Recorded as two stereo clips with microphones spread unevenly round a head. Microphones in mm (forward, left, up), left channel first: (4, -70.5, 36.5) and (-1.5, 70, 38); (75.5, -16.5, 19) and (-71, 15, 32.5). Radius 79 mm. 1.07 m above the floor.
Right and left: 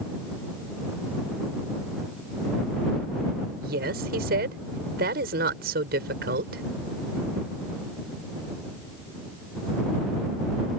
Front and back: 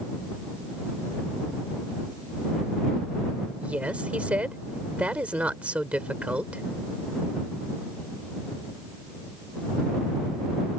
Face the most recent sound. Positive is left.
turn(degrees=85)